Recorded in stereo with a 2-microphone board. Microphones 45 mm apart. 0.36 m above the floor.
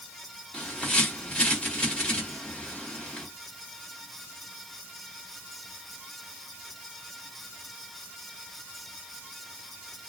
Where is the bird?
25° left (ahead or behind), 1.7 m.